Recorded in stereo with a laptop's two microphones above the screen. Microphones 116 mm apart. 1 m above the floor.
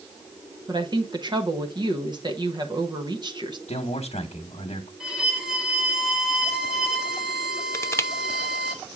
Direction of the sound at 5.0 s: 5° right (ahead or behind).